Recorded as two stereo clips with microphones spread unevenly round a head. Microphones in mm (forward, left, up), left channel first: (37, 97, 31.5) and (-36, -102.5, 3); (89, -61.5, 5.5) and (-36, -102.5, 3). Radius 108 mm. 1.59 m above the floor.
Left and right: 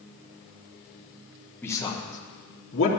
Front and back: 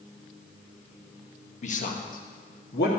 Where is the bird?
No bird in this recording.